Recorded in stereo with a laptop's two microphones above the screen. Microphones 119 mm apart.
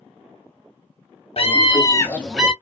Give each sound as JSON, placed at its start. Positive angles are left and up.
{"t": 1.4, "sound": "a scream", "side_deg": 55, "distance_m": 1.3}